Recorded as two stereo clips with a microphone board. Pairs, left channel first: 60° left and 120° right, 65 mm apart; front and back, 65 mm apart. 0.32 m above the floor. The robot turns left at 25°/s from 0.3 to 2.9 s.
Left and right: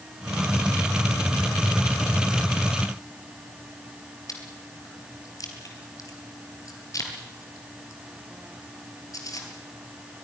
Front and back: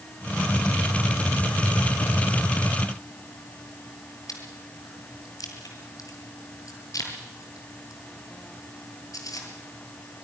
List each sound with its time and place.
4.3 s chewing: 30° left, 3.5 m